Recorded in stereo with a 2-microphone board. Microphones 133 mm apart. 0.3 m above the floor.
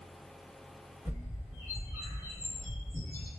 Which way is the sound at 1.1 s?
15° right (ahead or behind).